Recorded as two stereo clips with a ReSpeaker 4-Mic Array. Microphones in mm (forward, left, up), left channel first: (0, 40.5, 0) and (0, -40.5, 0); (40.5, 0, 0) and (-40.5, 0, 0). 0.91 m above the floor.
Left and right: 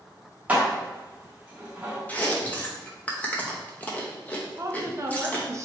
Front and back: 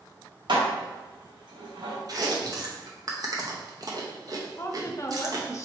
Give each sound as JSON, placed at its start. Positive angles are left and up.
{"t": 0.5, "sound": "dishes clattering", "azimuth_deg": -165, "distance_m": 0.9}
{"t": 2.1, "sound": "chewing", "azimuth_deg": 155, "distance_m": 0.7}
{"t": 4.6, "sound": "a woman speaking", "azimuth_deg": -45, "distance_m": 0.6}